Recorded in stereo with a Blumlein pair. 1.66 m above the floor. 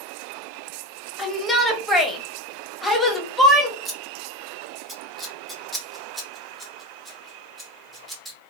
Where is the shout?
5° left, 0.9 m.